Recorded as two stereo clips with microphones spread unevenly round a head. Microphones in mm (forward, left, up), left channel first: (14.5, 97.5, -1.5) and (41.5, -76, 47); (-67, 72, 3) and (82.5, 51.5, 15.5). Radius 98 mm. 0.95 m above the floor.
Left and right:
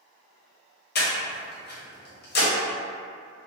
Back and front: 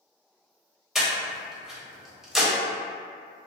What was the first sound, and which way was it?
Breathing, 80° left.